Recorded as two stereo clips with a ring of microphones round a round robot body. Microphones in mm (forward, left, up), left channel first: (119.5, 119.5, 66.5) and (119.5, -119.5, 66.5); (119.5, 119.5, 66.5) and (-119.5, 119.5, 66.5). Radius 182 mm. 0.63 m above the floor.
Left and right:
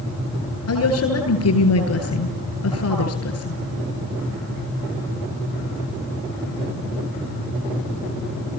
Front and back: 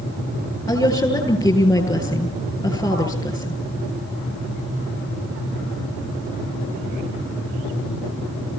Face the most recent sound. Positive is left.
turn(degrees=75)